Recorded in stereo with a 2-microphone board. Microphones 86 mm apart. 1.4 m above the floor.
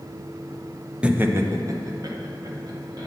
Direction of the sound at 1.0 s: 10° right (ahead or behind).